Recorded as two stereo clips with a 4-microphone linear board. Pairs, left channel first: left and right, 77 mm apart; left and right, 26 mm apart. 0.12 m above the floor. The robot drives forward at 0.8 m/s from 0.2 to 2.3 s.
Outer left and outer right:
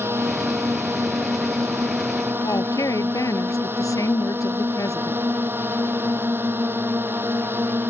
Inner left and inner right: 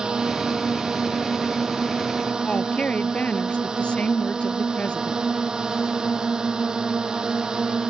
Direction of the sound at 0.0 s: 30° right (ahead or behind).